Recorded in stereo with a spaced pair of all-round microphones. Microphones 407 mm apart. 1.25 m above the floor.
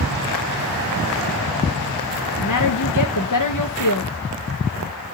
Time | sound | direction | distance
2.4 | a woman speaking | 50° left (ahead or behind) | 0.8 m